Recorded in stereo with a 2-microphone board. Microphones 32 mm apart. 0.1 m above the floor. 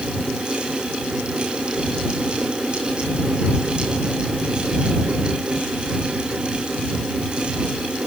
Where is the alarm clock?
No alarm clock in this recording.